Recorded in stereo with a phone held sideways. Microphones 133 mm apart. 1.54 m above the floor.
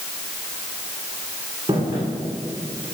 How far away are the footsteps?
About 5 m.